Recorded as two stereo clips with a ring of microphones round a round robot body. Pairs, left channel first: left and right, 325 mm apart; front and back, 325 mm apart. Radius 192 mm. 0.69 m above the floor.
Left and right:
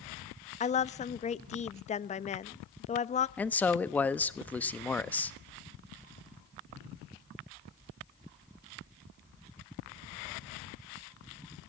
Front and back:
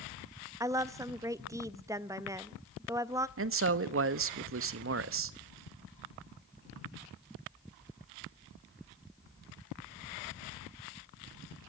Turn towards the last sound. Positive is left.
turn(degrees=175)